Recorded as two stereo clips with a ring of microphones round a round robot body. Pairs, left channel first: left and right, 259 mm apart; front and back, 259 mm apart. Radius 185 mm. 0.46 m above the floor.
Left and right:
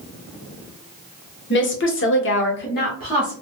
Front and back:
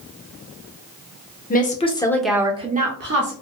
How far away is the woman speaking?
About 1.3 m.